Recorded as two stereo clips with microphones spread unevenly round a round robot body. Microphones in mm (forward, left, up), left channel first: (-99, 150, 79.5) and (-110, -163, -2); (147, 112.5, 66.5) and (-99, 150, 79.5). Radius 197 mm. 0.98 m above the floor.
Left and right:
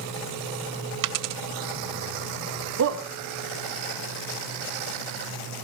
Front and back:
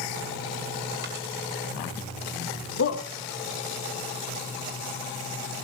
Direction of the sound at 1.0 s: 125° right.